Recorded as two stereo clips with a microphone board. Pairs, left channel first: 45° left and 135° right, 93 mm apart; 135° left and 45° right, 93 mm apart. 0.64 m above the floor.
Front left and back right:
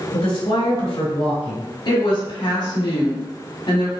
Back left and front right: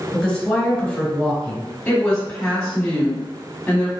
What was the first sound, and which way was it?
A woman speaking, 55° left.